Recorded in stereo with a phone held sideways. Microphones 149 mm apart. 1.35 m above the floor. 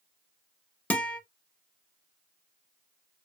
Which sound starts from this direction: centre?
A guitar, at 0.9 s.